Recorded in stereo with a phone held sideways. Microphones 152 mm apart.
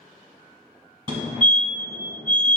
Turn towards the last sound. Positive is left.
turn(degrees=-35)  # may be behind; listen again after turning